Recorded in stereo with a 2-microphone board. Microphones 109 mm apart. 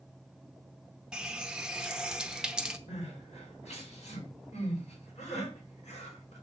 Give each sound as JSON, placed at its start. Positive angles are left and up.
{"t": 1.1, "sound": "a running tap", "side_deg": -5, "distance_m": 0.7}
{"t": 2.9, "sound": "crying", "side_deg": 85, "distance_m": 5.0}